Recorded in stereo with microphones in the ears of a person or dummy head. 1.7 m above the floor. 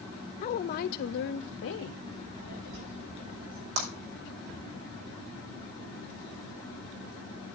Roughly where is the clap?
Right.